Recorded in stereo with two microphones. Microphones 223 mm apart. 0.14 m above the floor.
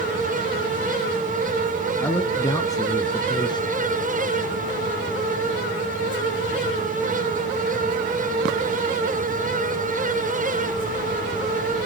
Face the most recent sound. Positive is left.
turn(degrees=20)  # may be behind; listen again after turning